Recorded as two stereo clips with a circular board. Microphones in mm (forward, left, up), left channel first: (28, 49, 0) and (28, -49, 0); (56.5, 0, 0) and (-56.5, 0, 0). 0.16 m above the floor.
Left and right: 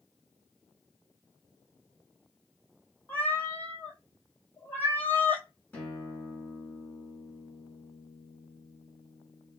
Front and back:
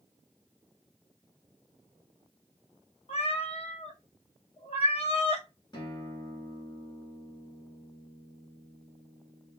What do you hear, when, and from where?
3.1 s a cat meowing: 20° left, 0.6 m
5.7 s a guitar: 25° left, 1.1 m